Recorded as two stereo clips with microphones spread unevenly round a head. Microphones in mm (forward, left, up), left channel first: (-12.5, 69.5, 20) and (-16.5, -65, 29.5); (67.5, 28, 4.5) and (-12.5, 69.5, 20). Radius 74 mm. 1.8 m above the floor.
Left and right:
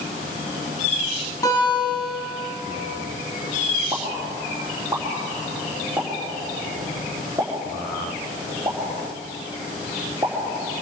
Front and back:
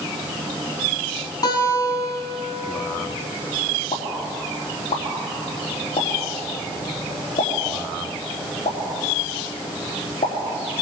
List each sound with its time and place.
1.4 s a guitar: 15° left, 7.5 m
3.9 s a pop: 15° right, 4.5 m